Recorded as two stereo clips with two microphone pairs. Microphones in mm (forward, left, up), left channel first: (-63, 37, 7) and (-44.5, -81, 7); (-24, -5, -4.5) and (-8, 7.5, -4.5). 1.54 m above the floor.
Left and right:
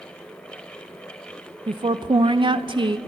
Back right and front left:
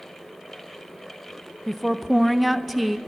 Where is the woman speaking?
50° right, 0.5 m.